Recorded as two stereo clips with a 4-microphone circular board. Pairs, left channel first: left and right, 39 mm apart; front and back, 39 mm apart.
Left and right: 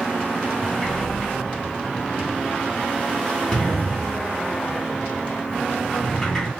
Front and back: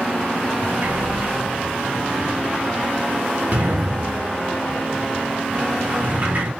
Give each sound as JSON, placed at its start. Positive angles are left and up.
{"t": 0.6, "sound": "a sliding door", "azimuth_deg": 165, "distance_m": 1.7}